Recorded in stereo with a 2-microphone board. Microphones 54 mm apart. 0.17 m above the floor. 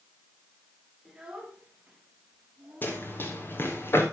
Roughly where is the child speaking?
Centre.